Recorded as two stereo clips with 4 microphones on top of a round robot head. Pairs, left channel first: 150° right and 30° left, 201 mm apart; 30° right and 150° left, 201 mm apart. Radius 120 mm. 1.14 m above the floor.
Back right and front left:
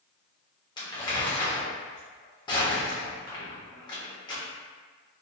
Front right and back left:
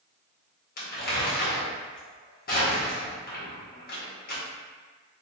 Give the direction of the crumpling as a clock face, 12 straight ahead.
3 o'clock.